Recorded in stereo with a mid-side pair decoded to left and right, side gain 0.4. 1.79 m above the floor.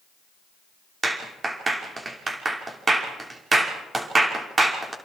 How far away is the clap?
About 5.5 m.